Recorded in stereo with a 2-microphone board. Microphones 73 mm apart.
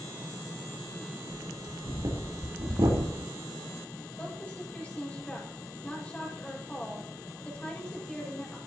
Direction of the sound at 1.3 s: 70° right (ahead or behind).